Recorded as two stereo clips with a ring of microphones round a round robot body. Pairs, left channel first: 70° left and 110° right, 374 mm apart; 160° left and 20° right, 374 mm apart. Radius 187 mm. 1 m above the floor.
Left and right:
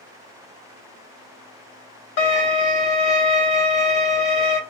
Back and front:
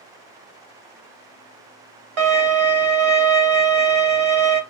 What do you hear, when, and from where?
2.2 s a violin: 15° left, 1.0 m